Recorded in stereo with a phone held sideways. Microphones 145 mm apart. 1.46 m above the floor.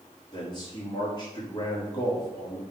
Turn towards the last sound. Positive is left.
turn(degrees=30)  # may be behind; listen again after turning